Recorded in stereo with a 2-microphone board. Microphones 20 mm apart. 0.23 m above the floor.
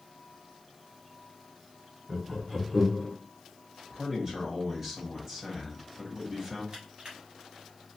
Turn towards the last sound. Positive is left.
turn(degrees=-50)  # may be behind; listen again after turning